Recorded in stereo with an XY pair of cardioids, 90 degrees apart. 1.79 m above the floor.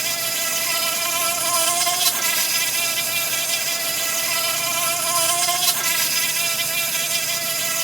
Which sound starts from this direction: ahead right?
An insect, at 0.0 s.